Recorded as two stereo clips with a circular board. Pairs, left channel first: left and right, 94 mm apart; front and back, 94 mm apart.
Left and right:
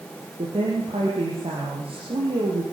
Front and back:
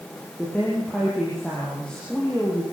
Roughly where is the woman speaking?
Right.